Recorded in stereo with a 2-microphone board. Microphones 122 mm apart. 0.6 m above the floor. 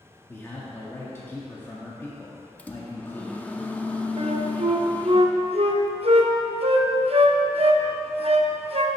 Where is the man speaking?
20° left (ahead or behind), 0.9 m.